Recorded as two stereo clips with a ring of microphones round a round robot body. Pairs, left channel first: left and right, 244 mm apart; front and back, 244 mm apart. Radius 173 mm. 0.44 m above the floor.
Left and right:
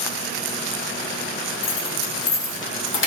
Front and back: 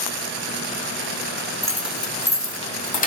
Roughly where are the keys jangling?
Left.